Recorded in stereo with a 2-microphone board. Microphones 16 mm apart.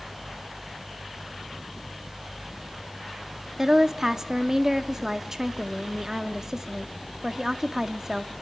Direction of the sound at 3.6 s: 25° right (ahead or behind).